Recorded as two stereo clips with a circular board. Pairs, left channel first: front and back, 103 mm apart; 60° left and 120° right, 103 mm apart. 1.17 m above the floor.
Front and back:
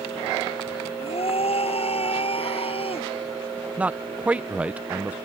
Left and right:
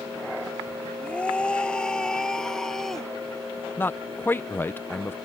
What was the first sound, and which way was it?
A scream, 20° right.